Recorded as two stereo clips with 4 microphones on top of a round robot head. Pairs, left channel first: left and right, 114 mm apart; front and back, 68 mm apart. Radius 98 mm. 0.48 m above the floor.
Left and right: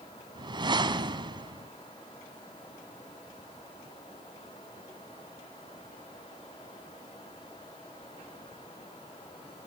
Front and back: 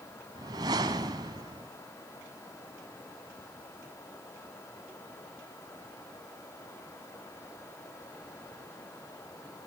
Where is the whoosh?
140° right, 1.3 m.